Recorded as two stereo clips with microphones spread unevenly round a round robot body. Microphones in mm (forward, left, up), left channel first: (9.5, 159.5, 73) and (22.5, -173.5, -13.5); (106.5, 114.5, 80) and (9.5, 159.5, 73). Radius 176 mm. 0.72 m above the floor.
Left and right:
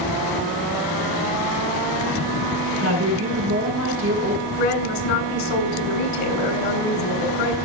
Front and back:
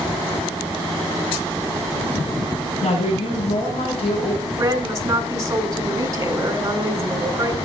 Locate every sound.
2.8 s a woman speaking: 40° right, 6.5 m
4.6 s a woman speaking: 95° left, 4 m